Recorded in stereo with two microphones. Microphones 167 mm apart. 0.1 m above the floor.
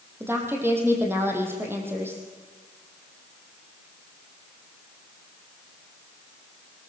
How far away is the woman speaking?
About 4 m.